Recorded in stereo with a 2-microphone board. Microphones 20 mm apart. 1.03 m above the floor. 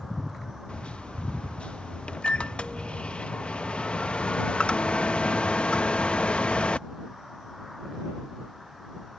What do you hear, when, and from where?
0.7 s a microwave: 70° left (ahead or behind)